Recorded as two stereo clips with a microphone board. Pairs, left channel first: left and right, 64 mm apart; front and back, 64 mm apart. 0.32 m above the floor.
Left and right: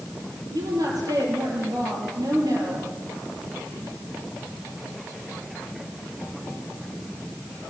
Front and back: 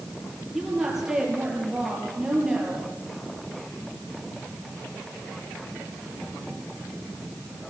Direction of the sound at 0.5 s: 95° right.